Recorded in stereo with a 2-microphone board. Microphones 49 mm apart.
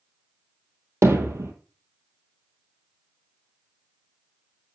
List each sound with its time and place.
1.0 s hammering: 70° right (ahead or behind), 2.5 m